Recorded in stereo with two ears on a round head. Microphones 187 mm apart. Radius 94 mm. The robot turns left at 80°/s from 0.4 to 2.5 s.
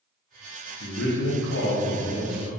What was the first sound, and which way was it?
A man speaking, 120° left.